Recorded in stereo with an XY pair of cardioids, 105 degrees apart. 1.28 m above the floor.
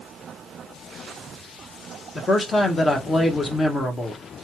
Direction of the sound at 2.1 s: 30° left.